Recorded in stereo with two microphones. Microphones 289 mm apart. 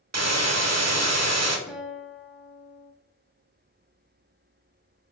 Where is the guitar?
Centre (ahead or behind), 0.6 m.